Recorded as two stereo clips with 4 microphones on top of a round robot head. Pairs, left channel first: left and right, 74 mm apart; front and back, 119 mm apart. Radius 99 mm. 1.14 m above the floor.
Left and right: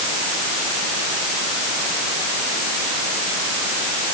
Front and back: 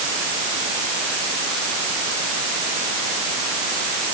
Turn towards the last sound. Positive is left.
No sound to turn to.